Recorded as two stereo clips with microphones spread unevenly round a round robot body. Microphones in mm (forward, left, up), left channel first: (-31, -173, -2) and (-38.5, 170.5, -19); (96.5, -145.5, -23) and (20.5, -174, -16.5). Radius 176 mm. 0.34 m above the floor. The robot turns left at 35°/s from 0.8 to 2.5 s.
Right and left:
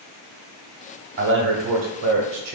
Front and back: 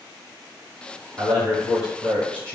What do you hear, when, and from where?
1.2 s a man speaking: 135° left, 1.4 m; by 2.6 s 90° left, 1.4 m